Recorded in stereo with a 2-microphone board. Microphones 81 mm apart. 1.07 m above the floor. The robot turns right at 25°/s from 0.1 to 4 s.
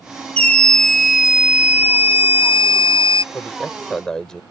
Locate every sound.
0.4 s a scream: 165° left; by 3.2 s 125° right
3.3 s a man speaking: 25° left (ahead or behind); by 4.4 s 10° left (ahead or behind)